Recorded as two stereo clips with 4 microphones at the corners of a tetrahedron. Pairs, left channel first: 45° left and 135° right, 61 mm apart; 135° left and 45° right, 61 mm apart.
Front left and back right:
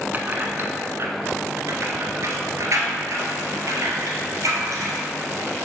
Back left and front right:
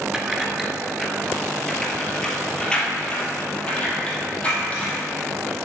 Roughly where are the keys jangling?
Behind right.